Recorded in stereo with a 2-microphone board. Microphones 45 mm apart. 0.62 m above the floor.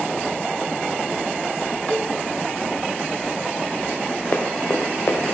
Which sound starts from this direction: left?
Running footsteps, at 4.3 s.